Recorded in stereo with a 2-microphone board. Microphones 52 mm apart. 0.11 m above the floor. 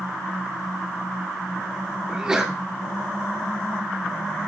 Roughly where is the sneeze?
Centre.